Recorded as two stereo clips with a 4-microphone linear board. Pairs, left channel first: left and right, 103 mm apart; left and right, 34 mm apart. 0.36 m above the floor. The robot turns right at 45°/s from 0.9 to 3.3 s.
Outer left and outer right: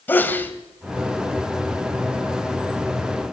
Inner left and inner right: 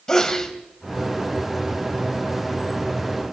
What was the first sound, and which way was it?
A sneeze, 20° left (ahead or behind).